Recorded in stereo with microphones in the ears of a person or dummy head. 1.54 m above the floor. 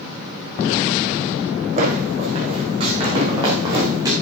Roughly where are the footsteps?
Right.